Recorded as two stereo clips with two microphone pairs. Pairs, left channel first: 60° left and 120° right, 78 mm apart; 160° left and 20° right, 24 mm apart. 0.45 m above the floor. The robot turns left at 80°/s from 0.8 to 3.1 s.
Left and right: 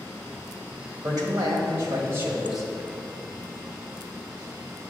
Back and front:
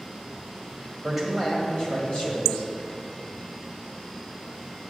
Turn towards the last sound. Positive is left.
turn(degrees=110)